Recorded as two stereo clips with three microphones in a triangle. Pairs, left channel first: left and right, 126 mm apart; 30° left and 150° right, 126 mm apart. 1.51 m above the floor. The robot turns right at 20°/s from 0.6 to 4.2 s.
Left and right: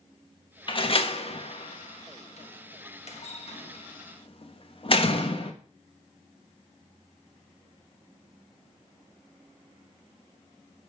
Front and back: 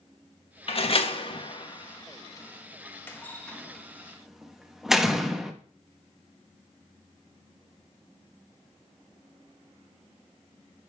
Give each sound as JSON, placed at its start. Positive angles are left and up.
{"t": 0.7, "sound": "a door slam", "azimuth_deg": 55, "distance_m": 1.2}